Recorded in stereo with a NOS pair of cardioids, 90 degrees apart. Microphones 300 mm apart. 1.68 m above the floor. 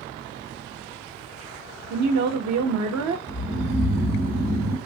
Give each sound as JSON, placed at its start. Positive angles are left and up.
{"t": 1.9, "sound": "a woman speaking", "azimuth_deg": -65, "distance_m": 0.7}
{"t": 3.3, "sound": "snoring", "azimuth_deg": -30, "distance_m": 0.8}